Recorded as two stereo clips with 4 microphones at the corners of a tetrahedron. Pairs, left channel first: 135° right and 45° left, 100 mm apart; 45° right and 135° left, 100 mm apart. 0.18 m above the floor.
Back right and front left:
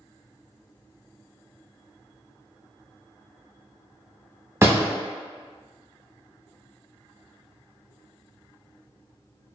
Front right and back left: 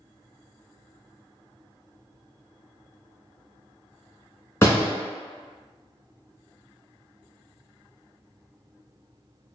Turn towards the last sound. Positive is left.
turn(degrees=0)